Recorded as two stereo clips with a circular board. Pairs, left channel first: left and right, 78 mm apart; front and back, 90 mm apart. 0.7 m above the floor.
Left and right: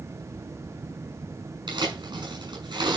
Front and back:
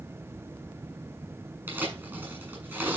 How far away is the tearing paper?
About 6 m.